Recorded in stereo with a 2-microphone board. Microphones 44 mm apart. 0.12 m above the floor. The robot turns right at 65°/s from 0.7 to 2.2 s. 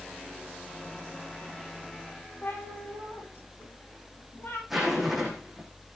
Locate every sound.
2.4 s a cat meowing: 50° left (ahead or behind), 9.5 m
4.7 s a zipper: 5° right (ahead or behind), 7.5 m